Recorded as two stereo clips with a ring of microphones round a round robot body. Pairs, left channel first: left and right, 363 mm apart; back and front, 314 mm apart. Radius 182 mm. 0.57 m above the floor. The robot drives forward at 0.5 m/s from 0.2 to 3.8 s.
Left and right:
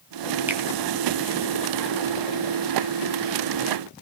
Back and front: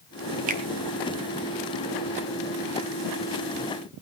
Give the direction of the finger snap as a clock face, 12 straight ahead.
12 o'clock.